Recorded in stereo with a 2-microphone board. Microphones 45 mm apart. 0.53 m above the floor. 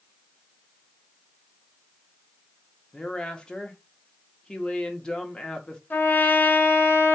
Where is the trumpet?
45° left (ahead or behind), 0.8 m.